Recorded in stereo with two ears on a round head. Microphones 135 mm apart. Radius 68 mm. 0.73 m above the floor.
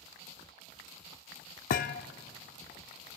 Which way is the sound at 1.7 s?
60° left (ahead or behind).